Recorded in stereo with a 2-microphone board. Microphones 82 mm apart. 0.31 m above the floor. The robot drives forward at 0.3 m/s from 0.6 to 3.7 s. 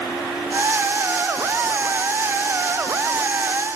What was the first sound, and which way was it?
Only background noise.